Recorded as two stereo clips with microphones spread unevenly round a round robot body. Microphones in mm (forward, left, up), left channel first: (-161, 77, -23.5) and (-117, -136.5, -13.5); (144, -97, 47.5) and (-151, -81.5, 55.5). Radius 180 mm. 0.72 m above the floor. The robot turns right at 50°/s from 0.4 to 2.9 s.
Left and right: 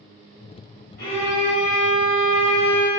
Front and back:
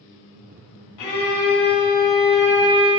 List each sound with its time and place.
1.0 s a violin: 35° left, 1.2 m; by 2.9 s 135° left, 1.2 m